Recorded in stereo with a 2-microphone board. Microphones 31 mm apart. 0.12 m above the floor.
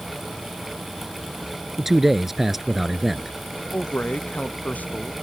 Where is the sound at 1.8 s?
10° right (ahead or behind).